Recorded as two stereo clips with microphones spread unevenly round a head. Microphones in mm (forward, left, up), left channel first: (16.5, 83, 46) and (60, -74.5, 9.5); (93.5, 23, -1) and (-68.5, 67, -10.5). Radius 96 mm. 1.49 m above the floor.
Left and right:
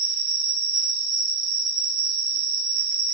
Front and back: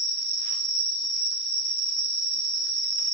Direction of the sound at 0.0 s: 115° right.